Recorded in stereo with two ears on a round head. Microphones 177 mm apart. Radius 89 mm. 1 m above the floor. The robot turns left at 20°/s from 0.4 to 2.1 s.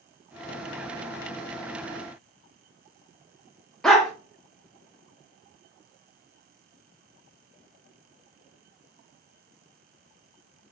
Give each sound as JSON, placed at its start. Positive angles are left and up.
{"t": 3.8, "sound": "a dog barking", "side_deg": 5, "distance_m": 0.6}